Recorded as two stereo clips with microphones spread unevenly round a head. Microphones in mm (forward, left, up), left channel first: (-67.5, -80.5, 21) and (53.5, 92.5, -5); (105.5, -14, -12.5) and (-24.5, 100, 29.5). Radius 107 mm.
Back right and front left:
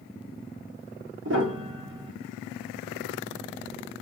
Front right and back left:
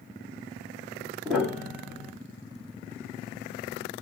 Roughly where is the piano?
Ahead left.